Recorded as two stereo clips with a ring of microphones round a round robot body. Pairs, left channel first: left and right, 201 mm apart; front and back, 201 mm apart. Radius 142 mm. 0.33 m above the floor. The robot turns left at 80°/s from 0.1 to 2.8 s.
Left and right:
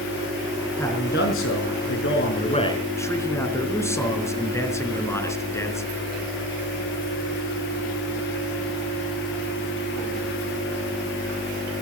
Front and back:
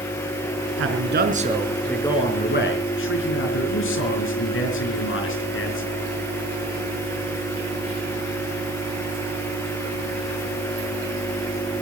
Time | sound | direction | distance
0.8 | a man speaking | 175° left | 4.5 m